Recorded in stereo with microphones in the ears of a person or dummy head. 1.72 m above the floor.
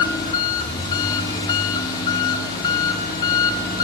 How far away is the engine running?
About 1.4 m.